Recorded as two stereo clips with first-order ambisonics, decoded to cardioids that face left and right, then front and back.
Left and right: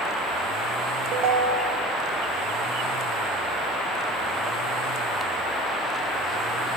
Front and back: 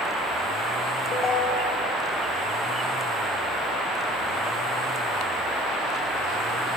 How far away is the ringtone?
About 0.8 m.